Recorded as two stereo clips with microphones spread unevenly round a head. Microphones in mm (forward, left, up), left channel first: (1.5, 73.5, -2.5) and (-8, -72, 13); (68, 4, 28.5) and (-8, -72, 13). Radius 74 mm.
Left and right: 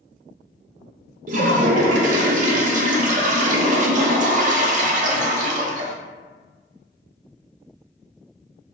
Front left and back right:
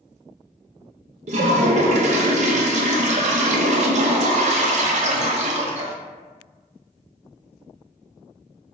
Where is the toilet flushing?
135° right, 0.5 m.